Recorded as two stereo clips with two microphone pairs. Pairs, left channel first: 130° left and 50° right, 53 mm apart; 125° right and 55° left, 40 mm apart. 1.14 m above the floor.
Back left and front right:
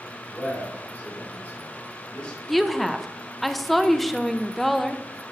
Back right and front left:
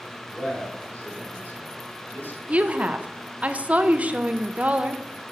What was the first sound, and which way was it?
A man speaking, 175° right.